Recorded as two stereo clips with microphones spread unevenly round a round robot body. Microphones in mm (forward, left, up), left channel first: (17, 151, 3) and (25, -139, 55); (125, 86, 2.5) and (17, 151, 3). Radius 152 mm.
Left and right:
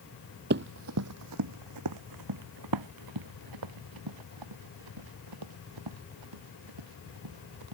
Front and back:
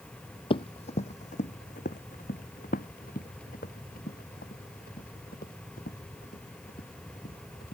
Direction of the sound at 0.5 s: 65° right.